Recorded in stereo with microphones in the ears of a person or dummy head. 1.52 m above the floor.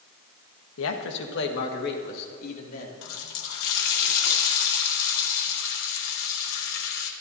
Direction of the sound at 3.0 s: 65° left (ahead or behind).